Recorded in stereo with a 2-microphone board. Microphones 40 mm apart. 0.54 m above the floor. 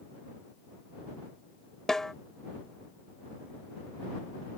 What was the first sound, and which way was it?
A snare drum, 15° left (ahead or behind).